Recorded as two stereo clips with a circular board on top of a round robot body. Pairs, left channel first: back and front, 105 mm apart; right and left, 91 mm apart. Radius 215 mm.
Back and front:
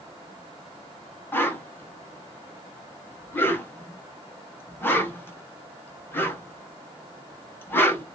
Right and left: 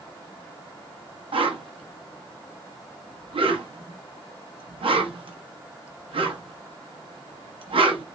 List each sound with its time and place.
1.3 s a whoosh: 110° left, 0.9 m